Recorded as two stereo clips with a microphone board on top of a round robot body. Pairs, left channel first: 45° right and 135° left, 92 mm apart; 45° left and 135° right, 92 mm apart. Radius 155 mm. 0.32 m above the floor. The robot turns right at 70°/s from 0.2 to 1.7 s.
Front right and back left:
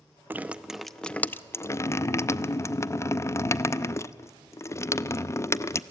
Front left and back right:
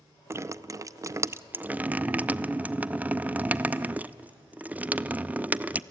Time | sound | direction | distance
0.3 | dripping | 170° right | 0.6 m